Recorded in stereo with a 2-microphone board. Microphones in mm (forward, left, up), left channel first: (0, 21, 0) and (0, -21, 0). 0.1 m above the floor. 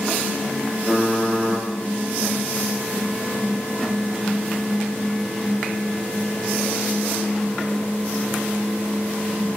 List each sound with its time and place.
0.9 s typing on a keyboard: 15° right (ahead or behind), 0.8 m